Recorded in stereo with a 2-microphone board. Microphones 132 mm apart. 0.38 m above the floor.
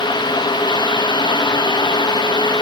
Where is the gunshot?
I don't hear a gunshot.